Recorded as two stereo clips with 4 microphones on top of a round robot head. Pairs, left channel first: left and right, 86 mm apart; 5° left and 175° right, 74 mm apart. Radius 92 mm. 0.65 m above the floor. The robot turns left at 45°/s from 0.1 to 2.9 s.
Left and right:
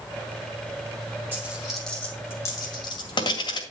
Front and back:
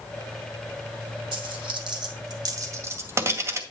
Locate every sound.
1.3 s a dropped coin: 160° right, 2 m; by 3.6 s 130° left, 2 m